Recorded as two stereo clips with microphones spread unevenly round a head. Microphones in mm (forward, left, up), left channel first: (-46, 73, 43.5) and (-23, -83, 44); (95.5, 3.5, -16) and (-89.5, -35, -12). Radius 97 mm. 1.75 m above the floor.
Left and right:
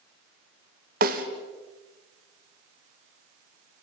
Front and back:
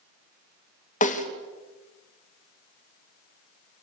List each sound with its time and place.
1.0 s a snare drum: 40° right, 2.5 m